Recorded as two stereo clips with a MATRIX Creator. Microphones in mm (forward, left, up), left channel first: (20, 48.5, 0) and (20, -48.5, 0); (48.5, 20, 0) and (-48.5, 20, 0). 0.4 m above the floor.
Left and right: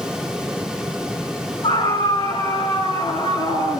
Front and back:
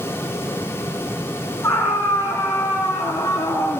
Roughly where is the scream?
Ahead left.